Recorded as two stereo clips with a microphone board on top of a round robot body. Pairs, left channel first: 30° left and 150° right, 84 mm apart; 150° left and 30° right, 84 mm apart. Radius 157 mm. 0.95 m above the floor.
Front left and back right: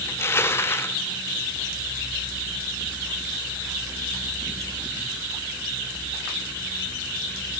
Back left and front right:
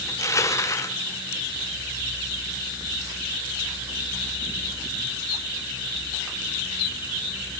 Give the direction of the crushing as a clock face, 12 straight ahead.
9 o'clock.